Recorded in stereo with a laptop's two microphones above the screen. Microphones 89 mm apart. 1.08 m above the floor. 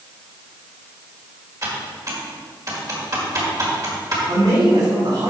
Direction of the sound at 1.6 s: 40° right (ahead or behind).